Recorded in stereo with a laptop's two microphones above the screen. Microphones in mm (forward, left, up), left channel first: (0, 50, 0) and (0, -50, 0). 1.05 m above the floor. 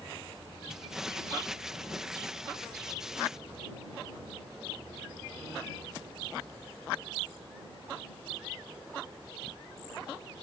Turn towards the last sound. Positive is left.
turn(degrees=-5)  # may be behind; listen again after turning